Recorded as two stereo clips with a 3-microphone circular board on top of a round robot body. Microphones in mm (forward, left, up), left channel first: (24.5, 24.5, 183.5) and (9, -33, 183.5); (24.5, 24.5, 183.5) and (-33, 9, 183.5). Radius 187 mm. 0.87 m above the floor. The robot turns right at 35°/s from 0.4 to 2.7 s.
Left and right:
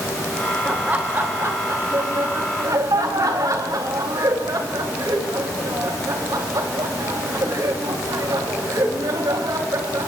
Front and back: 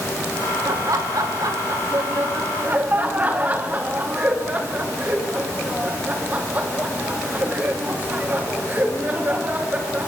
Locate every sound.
0.7 s laughter: 175° right, 2.5 m; by 10.1 s 105° right, 2.5 m